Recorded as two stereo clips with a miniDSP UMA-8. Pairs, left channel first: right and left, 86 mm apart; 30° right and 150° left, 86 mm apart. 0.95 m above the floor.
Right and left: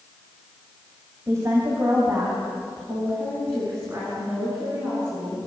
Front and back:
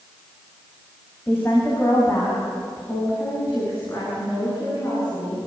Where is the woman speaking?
35° left, 5 m; by 5.4 s 25° left, 11 m.